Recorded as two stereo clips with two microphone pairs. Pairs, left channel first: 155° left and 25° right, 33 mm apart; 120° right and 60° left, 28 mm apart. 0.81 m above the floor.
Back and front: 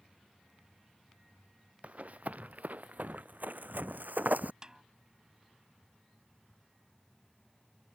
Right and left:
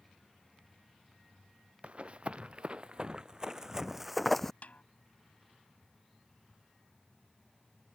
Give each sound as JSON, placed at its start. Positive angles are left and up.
{"t": 1.8, "sound": "running footsteps", "azimuth_deg": 15}
{"t": 4.6, "sound": "a snare drum", "azimuth_deg": -90}